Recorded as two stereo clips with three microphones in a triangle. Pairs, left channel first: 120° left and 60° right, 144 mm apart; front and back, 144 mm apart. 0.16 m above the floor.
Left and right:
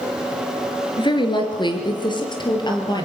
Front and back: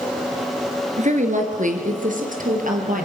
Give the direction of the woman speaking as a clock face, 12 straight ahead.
6 o'clock.